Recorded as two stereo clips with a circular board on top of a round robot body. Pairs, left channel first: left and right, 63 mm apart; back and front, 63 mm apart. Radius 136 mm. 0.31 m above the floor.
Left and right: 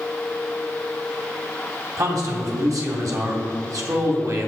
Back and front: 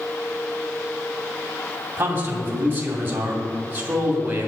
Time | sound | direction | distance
2.0 | a man speaking | 60° right | 2.5 m